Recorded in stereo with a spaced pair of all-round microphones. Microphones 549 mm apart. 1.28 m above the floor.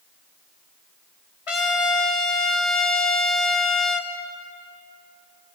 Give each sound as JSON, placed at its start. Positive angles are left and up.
{"t": 1.5, "sound": "a trumpet", "side_deg": 65, "distance_m": 1.0}